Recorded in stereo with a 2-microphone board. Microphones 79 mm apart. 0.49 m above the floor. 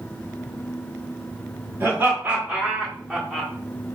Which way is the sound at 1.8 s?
25° right (ahead or behind).